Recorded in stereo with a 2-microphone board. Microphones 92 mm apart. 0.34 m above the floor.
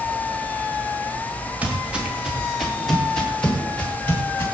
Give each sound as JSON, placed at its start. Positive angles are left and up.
{"t": 1.6, "sound": "footsteps", "side_deg": -15, "distance_m": 5.0}